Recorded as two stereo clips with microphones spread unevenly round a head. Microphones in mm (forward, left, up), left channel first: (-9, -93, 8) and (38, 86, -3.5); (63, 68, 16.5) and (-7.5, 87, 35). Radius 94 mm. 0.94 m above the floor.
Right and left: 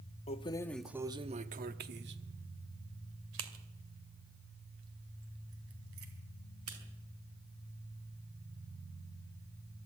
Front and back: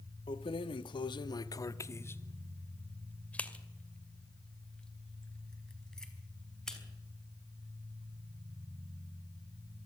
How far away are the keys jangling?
About 0.9 m.